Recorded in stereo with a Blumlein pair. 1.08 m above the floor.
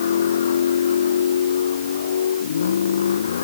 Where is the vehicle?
65° left.